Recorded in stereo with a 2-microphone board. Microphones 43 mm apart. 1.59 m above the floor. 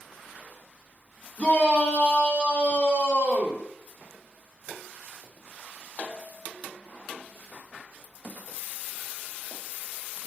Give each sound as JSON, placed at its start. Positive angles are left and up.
{"t": 1.4, "sound": "a shout", "side_deg": 35, "distance_m": 3.0}